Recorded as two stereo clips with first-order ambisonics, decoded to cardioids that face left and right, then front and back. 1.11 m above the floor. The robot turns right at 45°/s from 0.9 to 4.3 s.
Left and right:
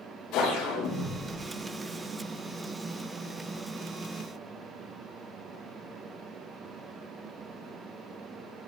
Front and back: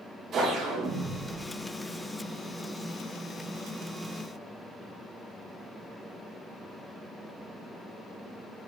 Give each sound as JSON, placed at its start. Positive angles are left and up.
{"t": 0.3, "sound": "a whoosh", "azimuth_deg": 120, "distance_m": 3.5}